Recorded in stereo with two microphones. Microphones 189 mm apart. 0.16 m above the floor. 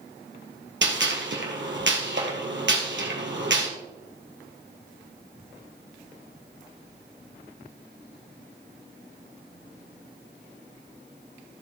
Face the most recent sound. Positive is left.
turn(degrees=-75)  # may be behind; listen again after turning